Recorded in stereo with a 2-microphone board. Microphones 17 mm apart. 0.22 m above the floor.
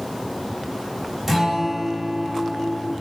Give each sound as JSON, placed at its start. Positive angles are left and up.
{"t": 1.3, "sound": "a guitar", "side_deg": 0, "distance_m": 1.0}